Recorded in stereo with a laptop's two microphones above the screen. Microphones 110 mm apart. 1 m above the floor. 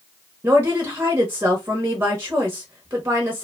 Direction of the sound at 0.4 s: 20° right (ahead or behind).